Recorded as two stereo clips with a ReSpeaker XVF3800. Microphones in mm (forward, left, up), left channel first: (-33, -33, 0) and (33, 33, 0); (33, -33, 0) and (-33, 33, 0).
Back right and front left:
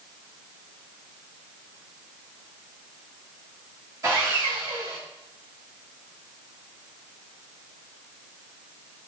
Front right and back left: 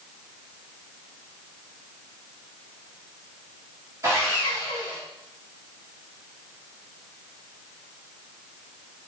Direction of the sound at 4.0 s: 85° left.